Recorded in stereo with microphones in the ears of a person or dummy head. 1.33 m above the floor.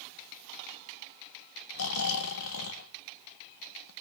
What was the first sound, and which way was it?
Snoring, 70° left (ahead or behind).